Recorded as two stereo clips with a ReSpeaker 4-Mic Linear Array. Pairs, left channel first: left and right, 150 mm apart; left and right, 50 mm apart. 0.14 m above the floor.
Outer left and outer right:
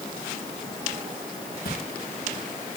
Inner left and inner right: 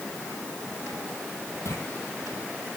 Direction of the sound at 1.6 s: 85° left.